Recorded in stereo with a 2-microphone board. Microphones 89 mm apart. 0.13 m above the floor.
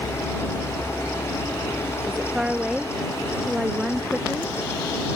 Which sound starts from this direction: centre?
A woman speaking, at 2.1 s.